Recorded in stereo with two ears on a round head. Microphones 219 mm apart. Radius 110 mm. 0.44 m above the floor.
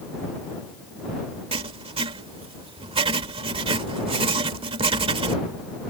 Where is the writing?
25° right (ahead or behind).